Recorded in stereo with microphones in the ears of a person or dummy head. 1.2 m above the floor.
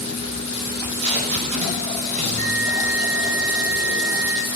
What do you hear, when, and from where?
0.7 s tape being pulled: 40° right (ahead or behind), 6 m
2.2 s a bell: 50° right (ahead or behind), 10 m